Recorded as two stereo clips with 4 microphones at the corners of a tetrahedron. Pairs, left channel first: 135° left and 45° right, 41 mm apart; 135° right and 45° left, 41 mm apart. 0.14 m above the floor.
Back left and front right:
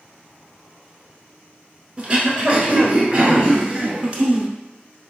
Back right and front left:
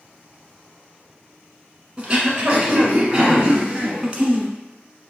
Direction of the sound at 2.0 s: 10° right.